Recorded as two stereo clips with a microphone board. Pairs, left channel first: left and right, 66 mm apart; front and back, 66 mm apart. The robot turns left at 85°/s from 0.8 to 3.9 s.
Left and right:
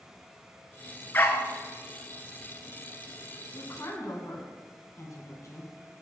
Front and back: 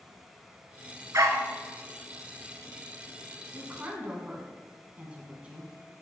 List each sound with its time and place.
1.1 s a dog barking: 150° left, 0.9 m; by 1.5 s 125° left, 0.9 m
3.5 s a woman speaking: 145° left, 2.0 m; by 5.7 s 110° left, 2.0 m